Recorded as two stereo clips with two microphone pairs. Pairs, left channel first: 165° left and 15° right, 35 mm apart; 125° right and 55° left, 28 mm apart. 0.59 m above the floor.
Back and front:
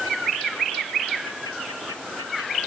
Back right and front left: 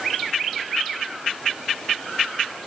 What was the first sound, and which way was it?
Only background noise.